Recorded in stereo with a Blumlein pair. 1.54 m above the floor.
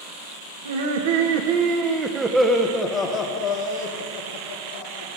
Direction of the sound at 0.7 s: 60° right.